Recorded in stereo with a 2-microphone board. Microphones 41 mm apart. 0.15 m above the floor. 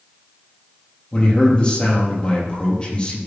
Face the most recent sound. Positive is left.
turn(degrees=30)  # may be behind; listen again after turning